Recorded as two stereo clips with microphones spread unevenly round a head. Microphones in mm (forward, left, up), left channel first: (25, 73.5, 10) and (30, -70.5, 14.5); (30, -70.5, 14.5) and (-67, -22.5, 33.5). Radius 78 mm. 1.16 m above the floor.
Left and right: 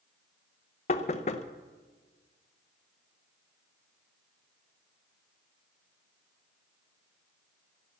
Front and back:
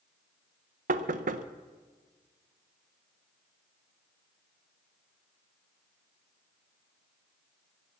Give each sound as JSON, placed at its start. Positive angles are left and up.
{"t": 0.9, "sound": "knocking", "azimuth_deg": 140, "distance_m": 0.7}